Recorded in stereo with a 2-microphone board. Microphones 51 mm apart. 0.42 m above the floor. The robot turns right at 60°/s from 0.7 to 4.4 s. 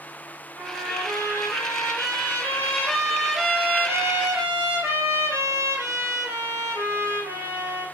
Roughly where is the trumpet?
Ahead left.